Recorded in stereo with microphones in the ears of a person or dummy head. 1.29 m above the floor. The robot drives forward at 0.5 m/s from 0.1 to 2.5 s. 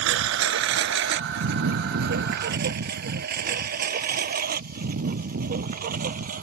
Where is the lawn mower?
70° right (ahead or behind); by 6.4 s 45° right (ahead or behind).